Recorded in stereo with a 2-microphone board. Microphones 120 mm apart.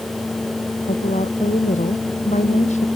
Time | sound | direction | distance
0.8 | a woman speaking | 85° left | ?